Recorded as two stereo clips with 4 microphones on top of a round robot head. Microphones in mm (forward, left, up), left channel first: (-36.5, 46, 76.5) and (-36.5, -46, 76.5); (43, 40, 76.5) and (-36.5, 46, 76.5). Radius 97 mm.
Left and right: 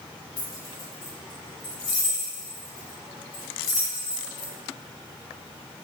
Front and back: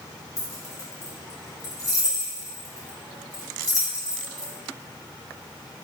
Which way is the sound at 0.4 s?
40° left.